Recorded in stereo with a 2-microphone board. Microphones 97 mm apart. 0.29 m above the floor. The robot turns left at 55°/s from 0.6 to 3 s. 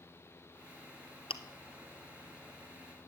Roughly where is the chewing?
Left.